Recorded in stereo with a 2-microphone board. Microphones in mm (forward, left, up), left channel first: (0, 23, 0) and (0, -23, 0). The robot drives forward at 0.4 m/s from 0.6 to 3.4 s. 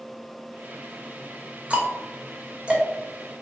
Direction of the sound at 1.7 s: 30° right (ahead or behind).